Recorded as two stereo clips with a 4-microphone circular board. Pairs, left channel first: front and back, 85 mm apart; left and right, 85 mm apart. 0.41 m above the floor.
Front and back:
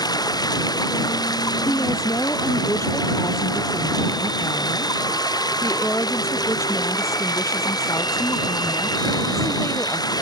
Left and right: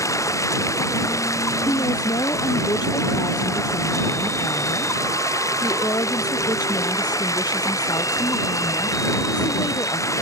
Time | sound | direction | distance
0.0 | running water | 40° left | ?
1.6 | a woman speaking | 55° left | ?